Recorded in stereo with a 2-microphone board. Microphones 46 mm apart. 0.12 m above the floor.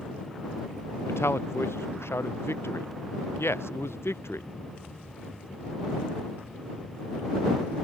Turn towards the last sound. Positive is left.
turn(degrees=70)  # may be behind; listen again after turning